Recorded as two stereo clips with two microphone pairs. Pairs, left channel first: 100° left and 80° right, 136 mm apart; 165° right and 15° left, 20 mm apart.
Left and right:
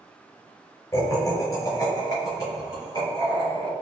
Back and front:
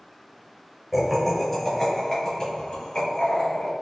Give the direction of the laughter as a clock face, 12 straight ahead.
10 o'clock.